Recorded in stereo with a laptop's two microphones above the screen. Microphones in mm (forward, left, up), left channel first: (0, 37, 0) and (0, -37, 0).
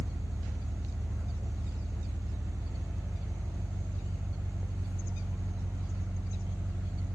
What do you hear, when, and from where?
0.0 s an engine running: 40° right (ahead or behind), 1.0 m